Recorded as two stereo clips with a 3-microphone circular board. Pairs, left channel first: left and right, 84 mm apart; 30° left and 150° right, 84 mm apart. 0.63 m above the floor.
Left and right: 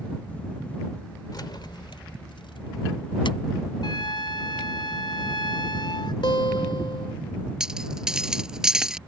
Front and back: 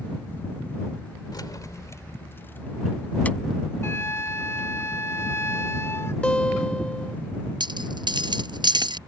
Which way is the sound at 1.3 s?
60° left.